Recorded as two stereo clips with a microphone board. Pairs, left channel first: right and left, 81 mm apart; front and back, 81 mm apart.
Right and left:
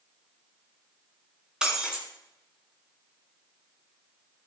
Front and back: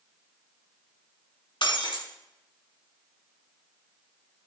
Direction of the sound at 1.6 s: 10° left.